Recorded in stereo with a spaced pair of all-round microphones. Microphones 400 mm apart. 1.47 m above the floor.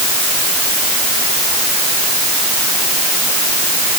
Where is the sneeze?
No sneeze in this recording.